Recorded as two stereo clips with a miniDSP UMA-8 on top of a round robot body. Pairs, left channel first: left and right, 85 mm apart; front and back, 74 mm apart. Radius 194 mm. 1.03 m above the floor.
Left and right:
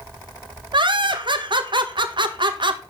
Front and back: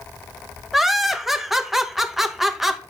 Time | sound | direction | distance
0.7 | laughter | 95° right | 1.9 m